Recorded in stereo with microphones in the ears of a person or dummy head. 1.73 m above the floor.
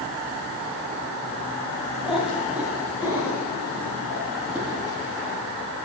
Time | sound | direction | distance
2.0 | a cat meowing | centre (ahead or behind) | 2.5 m